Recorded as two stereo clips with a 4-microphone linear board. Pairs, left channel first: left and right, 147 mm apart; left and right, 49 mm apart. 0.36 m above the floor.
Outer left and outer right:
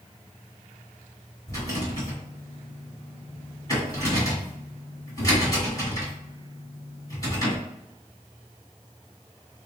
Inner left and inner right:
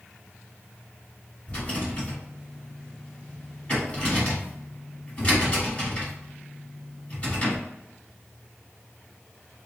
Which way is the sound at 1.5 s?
25° left (ahead or behind).